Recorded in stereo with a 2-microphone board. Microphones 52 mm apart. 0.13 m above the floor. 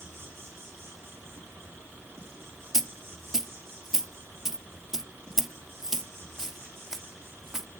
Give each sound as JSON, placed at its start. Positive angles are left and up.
{"t": 0.0, "sound": "an insect", "side_deg": -50, "distance_m": 6.5}
{"t": 2.7, "sound": "a dropped coin", "side_deg": -10, "distance_m": 0.7}